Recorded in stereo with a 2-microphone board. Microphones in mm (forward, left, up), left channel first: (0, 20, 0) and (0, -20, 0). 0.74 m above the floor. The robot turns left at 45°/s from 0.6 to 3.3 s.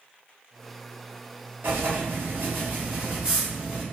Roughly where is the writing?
Right.